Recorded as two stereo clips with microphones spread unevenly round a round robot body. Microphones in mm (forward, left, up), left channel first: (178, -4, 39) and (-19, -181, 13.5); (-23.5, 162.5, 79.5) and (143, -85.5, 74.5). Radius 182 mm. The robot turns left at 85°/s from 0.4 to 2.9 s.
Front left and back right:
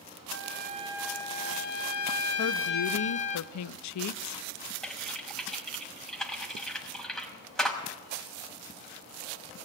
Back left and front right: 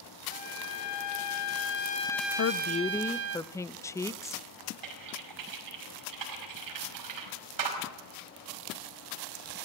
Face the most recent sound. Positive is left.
turn(degrees=-45)